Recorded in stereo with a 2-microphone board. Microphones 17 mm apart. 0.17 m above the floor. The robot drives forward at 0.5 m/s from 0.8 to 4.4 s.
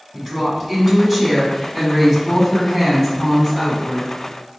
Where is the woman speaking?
10° left (ahead or behind), 1.5 m.